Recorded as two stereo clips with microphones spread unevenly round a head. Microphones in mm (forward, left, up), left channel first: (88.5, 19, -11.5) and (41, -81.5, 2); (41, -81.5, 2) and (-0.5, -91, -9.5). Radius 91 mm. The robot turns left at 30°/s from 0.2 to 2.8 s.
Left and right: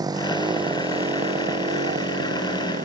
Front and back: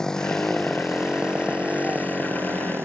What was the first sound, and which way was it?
A motorcycle, 60° right.